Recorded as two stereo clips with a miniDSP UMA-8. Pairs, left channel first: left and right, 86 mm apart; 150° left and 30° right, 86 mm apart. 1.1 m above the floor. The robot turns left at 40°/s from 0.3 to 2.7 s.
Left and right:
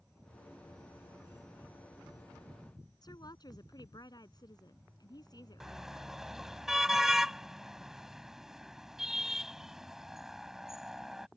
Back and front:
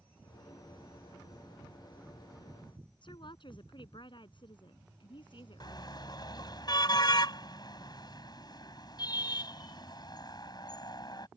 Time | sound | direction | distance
3.0 | a woman speaking | 130° left | ?
5.6 | a car horn | 175° right | ?